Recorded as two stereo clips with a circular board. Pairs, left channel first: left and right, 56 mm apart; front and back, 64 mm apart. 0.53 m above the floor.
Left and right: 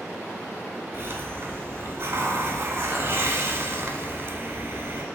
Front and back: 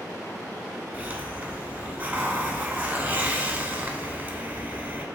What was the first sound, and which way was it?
A hiss, 115° right.